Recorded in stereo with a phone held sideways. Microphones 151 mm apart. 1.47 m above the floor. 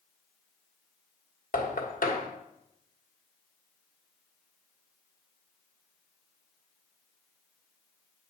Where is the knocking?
65° left (ahead or behind), 1.3 m.